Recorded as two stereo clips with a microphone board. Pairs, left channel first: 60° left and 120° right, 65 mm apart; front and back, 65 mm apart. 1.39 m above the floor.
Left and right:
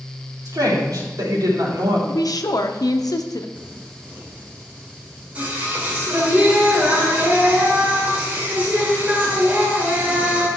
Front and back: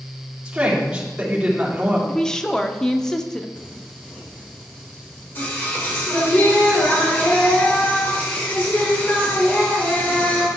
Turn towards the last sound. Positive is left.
turn(degrees=-60)